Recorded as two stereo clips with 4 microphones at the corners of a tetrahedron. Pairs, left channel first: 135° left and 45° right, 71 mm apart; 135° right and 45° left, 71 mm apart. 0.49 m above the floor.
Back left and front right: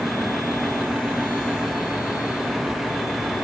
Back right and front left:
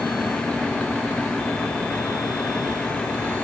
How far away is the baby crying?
No baby crying in this recording.